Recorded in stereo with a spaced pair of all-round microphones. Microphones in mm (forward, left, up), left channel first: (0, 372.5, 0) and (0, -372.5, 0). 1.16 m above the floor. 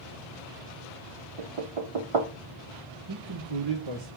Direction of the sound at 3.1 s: 35° right (ahead or behind).